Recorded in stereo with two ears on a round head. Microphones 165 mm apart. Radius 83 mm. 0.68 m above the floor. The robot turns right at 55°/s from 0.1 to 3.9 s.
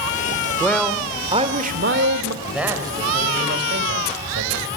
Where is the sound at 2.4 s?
175° left, 3.5 m; by 4.7 s 105° right, 3.5 m.